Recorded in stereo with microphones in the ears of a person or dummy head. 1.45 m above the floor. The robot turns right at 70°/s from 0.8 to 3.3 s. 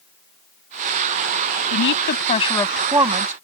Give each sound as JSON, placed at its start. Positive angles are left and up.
{"t": 1.7, "sound": "a woman speaking", "azimuth_deg": 105}